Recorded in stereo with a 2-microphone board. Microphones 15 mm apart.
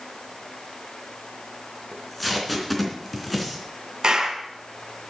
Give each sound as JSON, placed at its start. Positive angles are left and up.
{"t": 1.9, "sound": "tape being pulled", "side_deg": 5, "distance_m": 3.0}
{"t": 4.0, "sound": "a clap", "side_deg": -50, "distance_m": 2.5}